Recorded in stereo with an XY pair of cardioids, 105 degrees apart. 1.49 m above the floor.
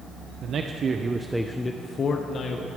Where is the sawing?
No sawing in this recording.